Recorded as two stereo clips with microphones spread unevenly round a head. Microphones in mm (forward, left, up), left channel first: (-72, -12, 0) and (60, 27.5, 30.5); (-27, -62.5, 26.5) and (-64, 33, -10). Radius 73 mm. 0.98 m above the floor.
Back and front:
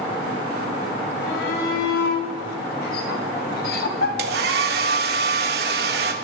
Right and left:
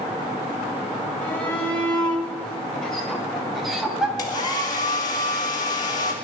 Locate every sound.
1.2 s a shout: 145° right, 5 m; by 4.1 s 170° right, 3 m
4.2 s a hair dryer: straight ahead, 1.9 m